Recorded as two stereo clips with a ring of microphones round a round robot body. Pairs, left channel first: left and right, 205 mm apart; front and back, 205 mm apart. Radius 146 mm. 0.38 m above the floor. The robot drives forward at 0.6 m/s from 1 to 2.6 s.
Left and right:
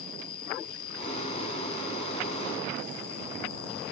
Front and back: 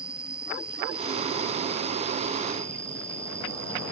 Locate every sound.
0.0 s an insect: 95° left; by 3.9 s 105° left